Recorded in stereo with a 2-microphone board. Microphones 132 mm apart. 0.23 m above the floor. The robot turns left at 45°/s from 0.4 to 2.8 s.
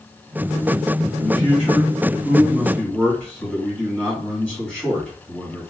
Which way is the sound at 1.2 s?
85° left.